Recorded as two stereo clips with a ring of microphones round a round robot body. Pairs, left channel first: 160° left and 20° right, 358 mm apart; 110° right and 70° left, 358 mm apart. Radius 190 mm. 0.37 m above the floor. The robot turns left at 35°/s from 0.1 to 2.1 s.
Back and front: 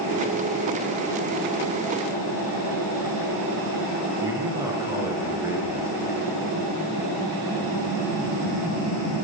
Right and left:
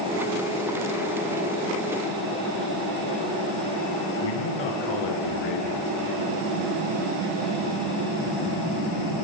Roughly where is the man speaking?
Right.